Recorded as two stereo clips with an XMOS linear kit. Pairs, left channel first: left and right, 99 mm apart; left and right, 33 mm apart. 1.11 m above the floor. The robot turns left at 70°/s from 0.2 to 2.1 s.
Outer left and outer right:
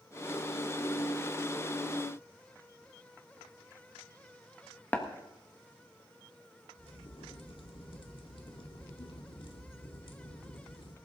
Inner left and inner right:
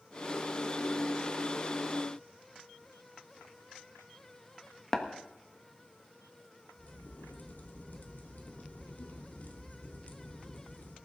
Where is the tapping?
15° left (ahead or behind), 1.4 m.